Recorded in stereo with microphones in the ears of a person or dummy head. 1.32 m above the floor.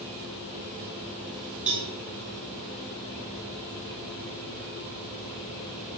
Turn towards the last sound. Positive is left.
turn(degrees=-35)  # may be behind; listen again after turning